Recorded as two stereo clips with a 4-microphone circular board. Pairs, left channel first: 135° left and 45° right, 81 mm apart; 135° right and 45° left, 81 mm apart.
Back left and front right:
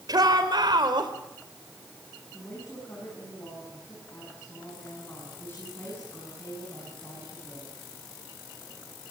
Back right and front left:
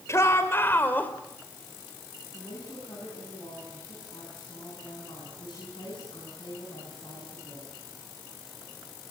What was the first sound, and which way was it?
A shout, 80° right.